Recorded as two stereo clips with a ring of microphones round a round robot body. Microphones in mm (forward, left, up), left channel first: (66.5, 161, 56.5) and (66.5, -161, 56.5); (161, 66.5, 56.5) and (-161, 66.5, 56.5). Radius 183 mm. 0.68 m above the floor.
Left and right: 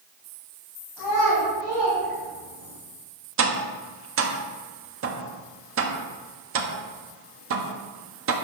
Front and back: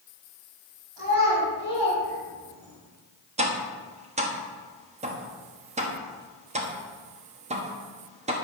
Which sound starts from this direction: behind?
A child speaking, at 1.0 s.